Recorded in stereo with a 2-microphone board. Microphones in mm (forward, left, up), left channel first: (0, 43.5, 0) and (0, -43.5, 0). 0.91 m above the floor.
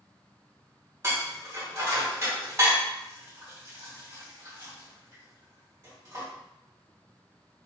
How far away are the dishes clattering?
About 1.9 m.